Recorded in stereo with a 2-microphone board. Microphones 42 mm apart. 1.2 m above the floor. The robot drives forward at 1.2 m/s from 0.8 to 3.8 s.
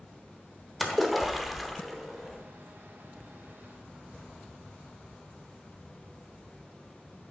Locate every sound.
0.8 s a splash: centre (ahead or behind), 1.1 m